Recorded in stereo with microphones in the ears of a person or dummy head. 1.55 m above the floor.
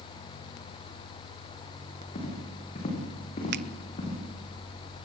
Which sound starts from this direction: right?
A finger snap, at 3.5 s.